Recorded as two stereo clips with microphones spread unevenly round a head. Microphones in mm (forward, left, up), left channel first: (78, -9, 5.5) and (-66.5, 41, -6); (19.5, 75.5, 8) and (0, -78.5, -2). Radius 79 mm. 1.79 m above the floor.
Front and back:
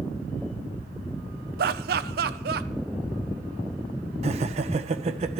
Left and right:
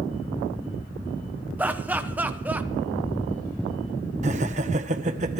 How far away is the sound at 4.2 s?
About 1.1 m.